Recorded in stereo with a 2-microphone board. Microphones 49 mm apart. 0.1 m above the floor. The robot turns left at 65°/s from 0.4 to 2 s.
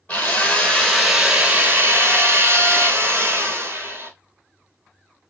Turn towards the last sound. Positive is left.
turn(degrees=-65)